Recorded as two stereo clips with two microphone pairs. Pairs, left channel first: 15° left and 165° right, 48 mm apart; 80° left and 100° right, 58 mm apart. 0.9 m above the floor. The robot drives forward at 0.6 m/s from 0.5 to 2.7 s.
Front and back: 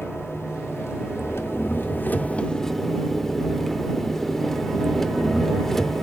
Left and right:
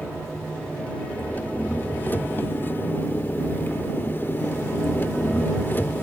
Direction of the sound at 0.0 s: 10° left.